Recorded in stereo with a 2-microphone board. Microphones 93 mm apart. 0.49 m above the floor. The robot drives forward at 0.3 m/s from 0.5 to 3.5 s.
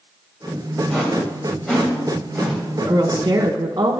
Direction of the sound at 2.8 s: 45° right (ahead or behind).